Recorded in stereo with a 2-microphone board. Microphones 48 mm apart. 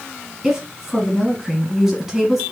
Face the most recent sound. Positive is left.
turn(degrees=-5)  # may be behind; listen again after turning